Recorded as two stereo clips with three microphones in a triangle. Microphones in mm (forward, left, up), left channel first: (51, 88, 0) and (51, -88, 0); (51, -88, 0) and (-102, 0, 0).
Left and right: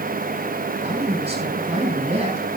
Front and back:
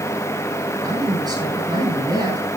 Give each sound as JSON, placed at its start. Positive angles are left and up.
{"t": 0.8, "sound": "a man speaking", "azimuth_deg": -145, "distance_m": 6.5}